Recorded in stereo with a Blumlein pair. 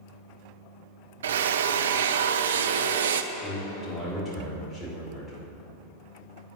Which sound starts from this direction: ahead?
A man speaking, at 3.3 s.